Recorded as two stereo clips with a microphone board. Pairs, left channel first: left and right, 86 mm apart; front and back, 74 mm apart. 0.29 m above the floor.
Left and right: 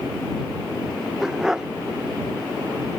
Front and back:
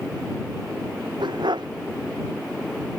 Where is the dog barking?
175° right.